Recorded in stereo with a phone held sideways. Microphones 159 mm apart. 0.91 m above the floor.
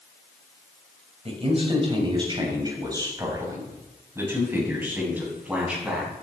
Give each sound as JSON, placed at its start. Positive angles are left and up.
{"t": 1.2, "sound": "a man speaking", "side_deg": -40, "distance_m": 4.5}